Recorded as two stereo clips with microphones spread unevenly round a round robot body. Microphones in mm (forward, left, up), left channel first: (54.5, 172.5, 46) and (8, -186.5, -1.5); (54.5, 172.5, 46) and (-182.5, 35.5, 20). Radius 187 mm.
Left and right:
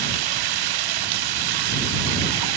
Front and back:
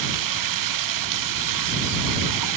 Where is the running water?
130° right.